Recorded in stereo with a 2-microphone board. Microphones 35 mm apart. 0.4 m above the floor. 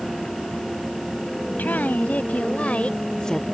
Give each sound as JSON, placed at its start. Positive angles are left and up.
{"t": 1.6, "sound": "a woman speaking", "side_deg": 60}